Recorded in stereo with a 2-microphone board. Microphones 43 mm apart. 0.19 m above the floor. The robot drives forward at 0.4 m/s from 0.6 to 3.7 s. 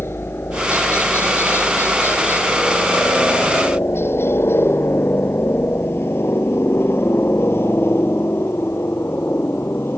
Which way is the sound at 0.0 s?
65° left (ahead or behind).